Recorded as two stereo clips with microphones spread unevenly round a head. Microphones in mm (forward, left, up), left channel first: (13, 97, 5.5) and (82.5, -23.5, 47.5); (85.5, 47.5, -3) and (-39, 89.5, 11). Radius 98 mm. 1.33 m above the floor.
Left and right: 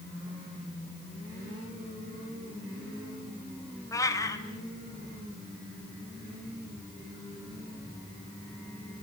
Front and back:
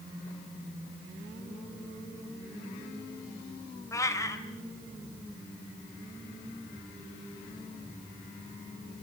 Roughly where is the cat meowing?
Ahead left.